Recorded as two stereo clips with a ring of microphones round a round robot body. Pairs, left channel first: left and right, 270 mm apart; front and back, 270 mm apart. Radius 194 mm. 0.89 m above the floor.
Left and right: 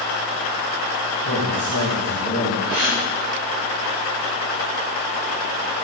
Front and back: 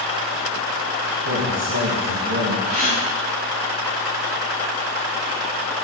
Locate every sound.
1.2 s a man speaking: 150° left, 4.5 m
2.7 s a gasp: 130° right, 4.5 m